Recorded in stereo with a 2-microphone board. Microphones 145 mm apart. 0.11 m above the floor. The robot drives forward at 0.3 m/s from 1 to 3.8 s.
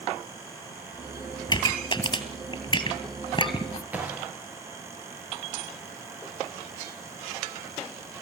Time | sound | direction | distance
1.5 | a pop | 30° left (ahead or behind) | 3 m
3.9 | a gunshot | 10° right (ahead or behind) | 4 m